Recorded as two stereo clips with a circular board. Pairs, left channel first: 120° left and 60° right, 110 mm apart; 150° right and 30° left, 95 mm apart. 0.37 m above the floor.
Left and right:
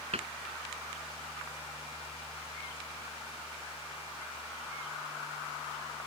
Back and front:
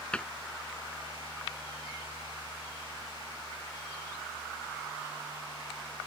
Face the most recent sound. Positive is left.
turn(degrees=-70)